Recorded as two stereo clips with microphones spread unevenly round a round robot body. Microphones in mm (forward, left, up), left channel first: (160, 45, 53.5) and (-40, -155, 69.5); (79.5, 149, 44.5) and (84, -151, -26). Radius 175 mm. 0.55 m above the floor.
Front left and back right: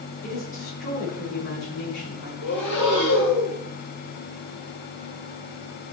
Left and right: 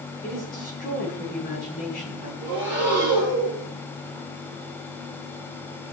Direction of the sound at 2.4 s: 5° right.